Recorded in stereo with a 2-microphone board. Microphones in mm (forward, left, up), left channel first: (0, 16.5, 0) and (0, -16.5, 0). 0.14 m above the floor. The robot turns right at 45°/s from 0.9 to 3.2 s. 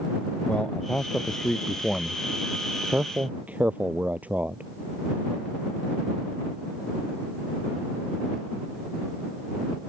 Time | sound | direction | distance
0.5 | a man speaking | 40° left (ahead or behind) | ?